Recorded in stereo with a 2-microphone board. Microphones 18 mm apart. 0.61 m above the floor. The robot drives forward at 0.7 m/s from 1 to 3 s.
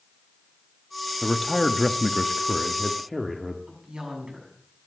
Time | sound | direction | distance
1.2 | a man speaking | 5° left (ahead or behind) | 0.8 m
3.7 | a woman speaking | 35° right (ahead or behind) | 6.5 m